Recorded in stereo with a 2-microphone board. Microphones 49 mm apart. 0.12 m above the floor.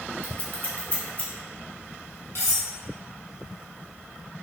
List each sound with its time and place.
0.2 s scissors: 40° left (ahead or behind), 1.3 m
2.4 s cutlery clinking: 65° left (ahead or behind), 1.9 m